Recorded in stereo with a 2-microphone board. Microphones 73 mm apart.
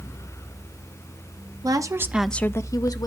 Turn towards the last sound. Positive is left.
turn(degrees=60)  # may be behind; listen again after turning